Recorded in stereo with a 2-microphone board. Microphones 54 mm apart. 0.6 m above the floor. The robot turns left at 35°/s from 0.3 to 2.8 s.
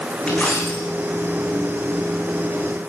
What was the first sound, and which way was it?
A dropped coin, 15° left (ahead or behind).